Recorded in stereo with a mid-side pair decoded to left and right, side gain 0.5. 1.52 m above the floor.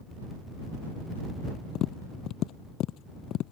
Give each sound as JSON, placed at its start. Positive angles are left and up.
{"t": 1.8, "sound": "tapping", "azimuth_deg": 70}